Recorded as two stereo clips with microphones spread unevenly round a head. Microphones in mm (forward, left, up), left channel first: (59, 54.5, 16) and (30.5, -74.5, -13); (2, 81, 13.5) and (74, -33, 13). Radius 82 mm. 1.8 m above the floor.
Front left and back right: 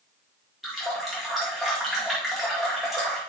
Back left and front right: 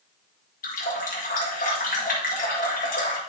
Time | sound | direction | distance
0.6 | a running tap | 160° left | 1.8 m